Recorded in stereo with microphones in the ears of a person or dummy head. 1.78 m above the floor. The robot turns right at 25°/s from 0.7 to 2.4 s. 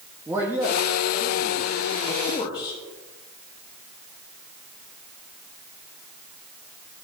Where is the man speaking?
15° right, 1.1 m; by 2.8 s 30° left, 1.1 m.